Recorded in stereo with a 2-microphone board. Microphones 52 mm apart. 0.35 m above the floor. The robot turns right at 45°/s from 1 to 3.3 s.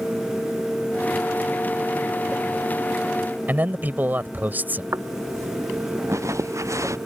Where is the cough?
No cough in this recording.